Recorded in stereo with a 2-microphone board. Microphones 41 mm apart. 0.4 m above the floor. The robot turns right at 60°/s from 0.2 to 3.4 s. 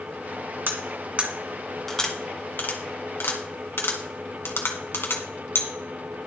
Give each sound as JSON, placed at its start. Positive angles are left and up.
{"t": 0.7, "sound": "cutlery clinking", "side_deg": -65, "distance_m": 1.9}